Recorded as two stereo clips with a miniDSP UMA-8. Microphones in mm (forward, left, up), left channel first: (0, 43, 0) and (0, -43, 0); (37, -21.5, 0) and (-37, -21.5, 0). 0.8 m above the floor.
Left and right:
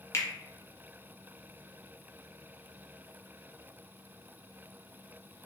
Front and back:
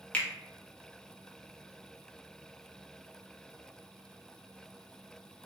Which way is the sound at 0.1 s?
65° left.